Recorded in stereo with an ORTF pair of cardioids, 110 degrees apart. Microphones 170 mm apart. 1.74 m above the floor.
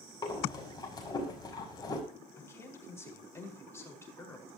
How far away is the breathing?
About 6 m.